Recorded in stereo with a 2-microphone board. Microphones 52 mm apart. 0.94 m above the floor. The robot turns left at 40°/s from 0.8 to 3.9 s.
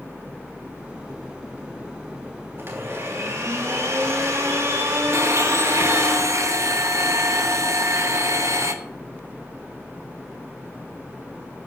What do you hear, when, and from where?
2.6 s a blender: 45° right, 3 m; by 6.1 s 100° right, 3 m
5.1 s a blender: 70° right (ahead or behind), 0.9 m